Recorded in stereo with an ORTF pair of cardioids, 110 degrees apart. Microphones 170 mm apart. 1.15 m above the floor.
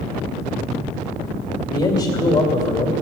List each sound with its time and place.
1.7 s a man speaking: 30° left, 2.5 m